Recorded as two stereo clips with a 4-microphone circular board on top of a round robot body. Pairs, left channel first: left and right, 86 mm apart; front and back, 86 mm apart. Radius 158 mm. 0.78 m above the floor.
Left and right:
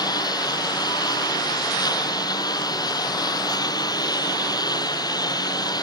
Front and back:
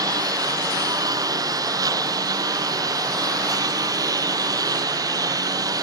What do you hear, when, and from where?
0.0 s a lawn mower: 135° left